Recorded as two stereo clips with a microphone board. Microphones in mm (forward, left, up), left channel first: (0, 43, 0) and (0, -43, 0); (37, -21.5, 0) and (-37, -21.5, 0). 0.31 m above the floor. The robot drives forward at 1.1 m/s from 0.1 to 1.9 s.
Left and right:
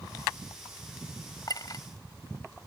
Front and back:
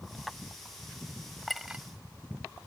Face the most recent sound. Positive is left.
turn(degrees=120)